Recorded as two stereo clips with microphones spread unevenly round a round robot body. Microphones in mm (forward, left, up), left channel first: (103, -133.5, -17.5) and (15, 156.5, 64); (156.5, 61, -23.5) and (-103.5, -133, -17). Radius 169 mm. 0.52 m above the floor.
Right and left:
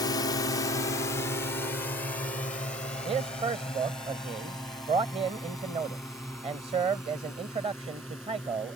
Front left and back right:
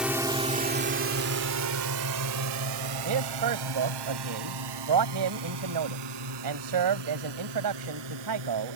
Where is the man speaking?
175° right.